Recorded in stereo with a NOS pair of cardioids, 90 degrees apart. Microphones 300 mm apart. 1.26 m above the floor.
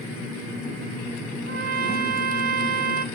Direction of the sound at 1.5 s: 35° right.